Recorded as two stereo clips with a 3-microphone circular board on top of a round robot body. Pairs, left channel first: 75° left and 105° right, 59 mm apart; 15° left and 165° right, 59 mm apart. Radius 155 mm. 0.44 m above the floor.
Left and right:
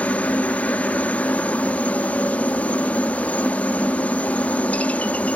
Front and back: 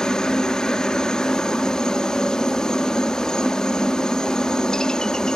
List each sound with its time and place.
0.0 s a helicopter: 75° left